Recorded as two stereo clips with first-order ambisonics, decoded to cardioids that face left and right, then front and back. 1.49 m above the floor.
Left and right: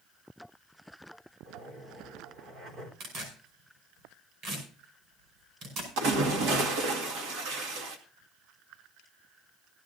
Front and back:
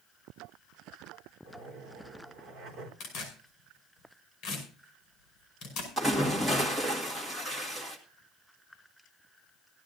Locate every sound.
1.4 s a zipper: 130° right, 3.5 m
3.0 s tearing paper: 50° right, 5 m
6.0 s a splash: 100° right, 1.9 m